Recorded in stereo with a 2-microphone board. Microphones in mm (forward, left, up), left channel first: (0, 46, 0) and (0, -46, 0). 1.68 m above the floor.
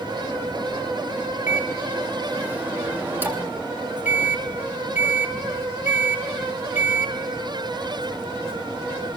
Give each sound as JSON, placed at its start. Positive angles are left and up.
{"t": 1.5, "sound": "a microwave", "side_deg": -20, "distance_m": 3.0}